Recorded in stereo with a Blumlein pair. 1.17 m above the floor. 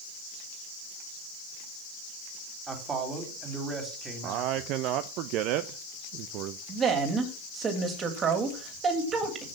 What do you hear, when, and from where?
2.7 s a man speaking: 15° right, 3 m
4.2 s a man speaking: 40° right, 0.6 m
6.7 s a woman speaking: 25° right, 3 m